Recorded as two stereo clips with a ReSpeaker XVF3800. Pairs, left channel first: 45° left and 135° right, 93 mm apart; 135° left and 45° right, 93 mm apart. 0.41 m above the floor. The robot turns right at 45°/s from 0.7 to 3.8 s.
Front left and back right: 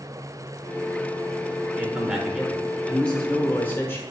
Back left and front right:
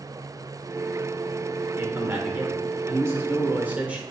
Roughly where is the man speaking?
Right.